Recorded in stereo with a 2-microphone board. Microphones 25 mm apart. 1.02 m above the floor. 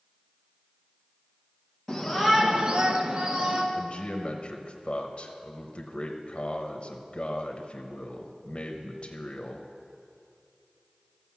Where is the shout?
Centre (ahead or behind), 1.1 m; by 3.6 s 35° right (ahead or behind), 1.6 m.